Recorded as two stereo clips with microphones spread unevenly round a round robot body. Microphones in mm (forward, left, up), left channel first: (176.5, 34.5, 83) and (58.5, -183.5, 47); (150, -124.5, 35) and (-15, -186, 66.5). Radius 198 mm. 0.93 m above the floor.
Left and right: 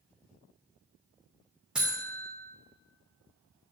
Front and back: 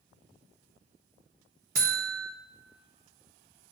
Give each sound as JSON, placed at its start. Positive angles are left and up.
{"t": 1.8, "sound": "a buzzer", "azimuth_deg": 160, "distance_m": 0.6}